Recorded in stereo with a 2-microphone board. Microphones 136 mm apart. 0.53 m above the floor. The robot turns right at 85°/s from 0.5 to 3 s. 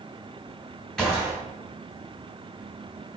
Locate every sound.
1.0 s a gunshot: 175° left, 2.5 m; by 1.4 s 150° right, 2.5 m